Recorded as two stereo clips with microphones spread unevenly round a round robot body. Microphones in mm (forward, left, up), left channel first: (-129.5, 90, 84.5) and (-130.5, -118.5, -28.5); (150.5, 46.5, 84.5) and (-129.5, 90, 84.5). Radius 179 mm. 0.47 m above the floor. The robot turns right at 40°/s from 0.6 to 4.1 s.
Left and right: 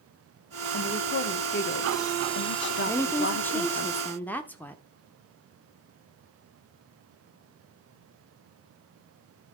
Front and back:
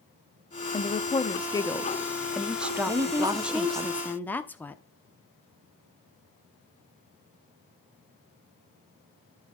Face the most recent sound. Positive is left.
turn(degrees=-85)